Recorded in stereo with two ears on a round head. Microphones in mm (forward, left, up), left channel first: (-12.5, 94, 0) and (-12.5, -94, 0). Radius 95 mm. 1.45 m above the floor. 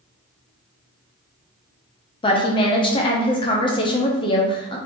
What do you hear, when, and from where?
2.2 s a woman speaking: 25° left (ahead or behind), 0.7 m